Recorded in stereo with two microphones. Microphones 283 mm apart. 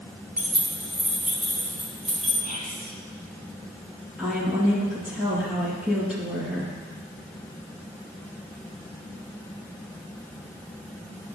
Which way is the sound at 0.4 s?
5° right (ahead or behind).